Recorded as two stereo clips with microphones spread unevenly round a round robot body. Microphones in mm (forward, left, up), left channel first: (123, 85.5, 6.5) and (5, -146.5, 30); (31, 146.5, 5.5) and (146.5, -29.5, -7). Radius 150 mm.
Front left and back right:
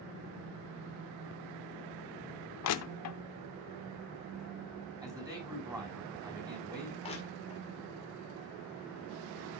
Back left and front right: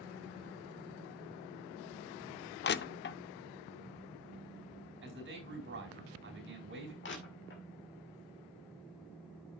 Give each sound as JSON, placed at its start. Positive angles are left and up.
{"t": 2.6, "sound": "crushing", "azimuth_deg": 85, "distance_m": 0.6}
{"t": 5.0, "sound": "a man speaking", "azimuth_deg": -40, "distance_m": 4.5}
{"t": 7.0, "sound": "crushing", "azimuth_deg": 125, "distance_m": 2.0}